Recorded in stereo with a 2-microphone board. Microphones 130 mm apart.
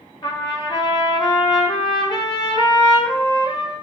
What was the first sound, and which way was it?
A trumpet, 35° left (ahead or behind).